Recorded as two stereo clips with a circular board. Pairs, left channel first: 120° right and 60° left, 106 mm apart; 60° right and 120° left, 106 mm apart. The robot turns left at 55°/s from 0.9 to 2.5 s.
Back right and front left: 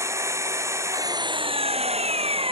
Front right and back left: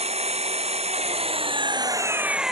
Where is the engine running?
120° left; by 2.5 s 35° left.